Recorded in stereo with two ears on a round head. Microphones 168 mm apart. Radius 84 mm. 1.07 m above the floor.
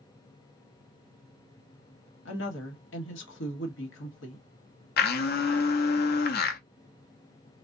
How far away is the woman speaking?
About 1.3 m.